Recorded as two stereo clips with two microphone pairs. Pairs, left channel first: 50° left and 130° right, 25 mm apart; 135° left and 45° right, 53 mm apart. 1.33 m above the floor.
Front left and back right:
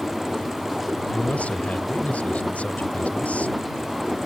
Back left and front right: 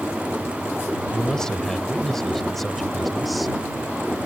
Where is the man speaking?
60° left; by 3.6 s 45° left.